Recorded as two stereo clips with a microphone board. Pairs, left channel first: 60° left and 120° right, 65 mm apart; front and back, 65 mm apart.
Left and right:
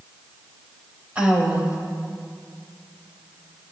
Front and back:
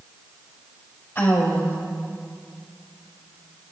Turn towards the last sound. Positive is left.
turn(degrees=-55)